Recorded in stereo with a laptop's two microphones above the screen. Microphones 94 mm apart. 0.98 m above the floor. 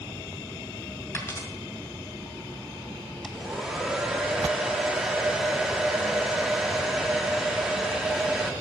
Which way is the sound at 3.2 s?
5° right (ahead or behind).